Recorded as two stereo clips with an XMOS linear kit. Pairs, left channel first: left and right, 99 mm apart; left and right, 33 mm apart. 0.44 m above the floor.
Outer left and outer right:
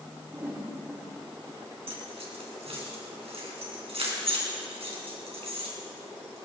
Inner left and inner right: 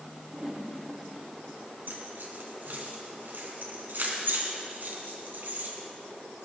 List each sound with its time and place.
0.3 s a whoosh: 25° right (ahead or behind), 5.5 m
1.9 s keys jangling: 80° right, 4 m